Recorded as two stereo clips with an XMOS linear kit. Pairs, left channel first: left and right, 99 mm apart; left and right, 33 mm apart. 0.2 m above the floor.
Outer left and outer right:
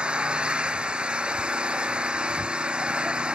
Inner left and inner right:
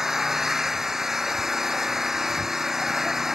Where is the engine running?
10° right (ahead or behind).